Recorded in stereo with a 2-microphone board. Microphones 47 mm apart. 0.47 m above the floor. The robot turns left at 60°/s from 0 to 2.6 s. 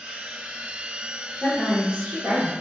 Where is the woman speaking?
Straight ahead, 0.9 m; by 2.5 s 70° right, 0.9 m.